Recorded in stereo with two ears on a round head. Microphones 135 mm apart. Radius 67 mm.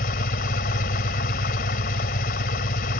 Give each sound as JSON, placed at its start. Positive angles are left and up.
{"t": 0.0, "sound": "an engine running", "side_deg": 60}